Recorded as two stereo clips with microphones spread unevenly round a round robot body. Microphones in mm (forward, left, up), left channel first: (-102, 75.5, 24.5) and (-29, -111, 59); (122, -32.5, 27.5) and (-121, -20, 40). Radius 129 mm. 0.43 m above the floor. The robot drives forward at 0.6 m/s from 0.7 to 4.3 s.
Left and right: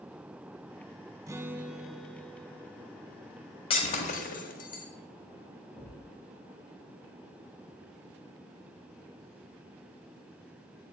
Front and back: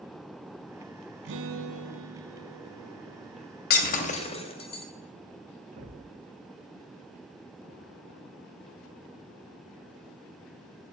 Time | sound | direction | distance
1.3 | a guitar | 140° right | 0.7 m
3.7 | breaking glass | 50° left | 1.2 m
5.8 | a thud | 145° right | 5.5 m